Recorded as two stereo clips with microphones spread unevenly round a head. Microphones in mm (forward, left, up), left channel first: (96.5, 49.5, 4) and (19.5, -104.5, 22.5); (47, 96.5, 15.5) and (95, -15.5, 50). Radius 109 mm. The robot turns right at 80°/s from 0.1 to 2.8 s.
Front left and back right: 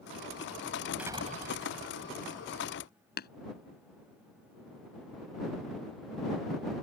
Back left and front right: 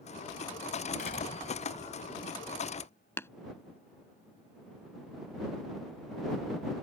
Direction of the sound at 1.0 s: 160° left.